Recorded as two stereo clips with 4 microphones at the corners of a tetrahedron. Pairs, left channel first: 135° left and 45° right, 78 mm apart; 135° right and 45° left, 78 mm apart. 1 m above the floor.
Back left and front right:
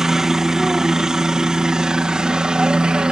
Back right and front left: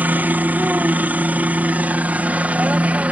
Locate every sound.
0.0 s a helicopter: 30° left; by 3.1 s 15° left